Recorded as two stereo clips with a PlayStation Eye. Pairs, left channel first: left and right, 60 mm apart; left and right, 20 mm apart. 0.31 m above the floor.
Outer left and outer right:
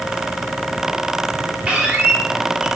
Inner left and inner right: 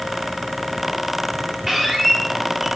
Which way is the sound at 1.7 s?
20° right (ahead or behind).